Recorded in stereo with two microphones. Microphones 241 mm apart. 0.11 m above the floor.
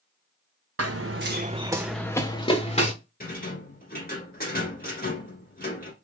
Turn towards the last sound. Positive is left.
turn(degrees=40)  # may be behind; listen again after turning